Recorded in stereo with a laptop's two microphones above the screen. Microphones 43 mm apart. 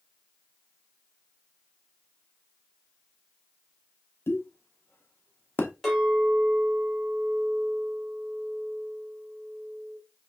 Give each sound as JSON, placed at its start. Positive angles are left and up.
{"t": 4.3, "sound": "a pop", "side_deg": 70, "distance_m": 0.6}
{"t": 5.8, "sound": "a clink", "side_deg": 10, "distance_m": 1.9}